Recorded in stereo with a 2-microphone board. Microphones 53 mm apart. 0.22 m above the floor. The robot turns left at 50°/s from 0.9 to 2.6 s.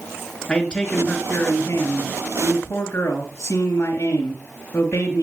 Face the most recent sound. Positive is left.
turn(degrees=75)